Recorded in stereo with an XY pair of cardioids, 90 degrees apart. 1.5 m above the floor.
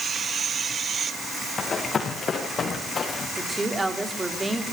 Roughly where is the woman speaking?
Ahead.